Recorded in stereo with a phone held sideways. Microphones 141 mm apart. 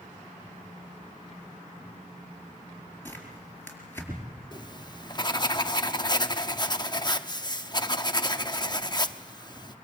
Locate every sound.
3.0 s tearing paper: 15° left (ahead or behind), 4.5 m
4.5 s writing: 30° left (ahead or behind), 0.7 m